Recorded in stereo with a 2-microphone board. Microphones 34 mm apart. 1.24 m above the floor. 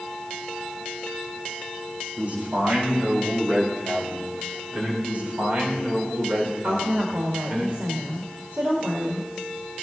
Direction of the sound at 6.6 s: 75° right (ahead or behind).